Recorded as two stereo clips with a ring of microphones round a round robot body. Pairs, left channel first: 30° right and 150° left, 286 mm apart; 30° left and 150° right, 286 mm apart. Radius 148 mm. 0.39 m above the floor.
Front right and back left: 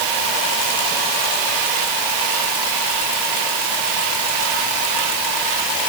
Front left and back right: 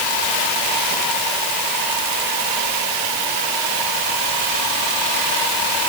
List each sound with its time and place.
Only background noise.